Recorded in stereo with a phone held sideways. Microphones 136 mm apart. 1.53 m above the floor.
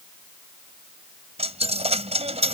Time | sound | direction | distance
1.4 | a dropped coin | 50° right (ahead or behind) | ?